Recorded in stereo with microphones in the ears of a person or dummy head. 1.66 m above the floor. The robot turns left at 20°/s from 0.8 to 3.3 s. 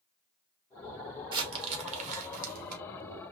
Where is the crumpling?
20° right (ahead or behind), 1.3 m; by 2.8 s 50° right (ahead or behind), 1.3 m.